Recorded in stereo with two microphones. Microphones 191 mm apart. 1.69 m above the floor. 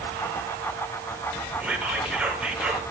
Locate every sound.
1.6 s whispering: 5° right (ahead or behind), 1.2 m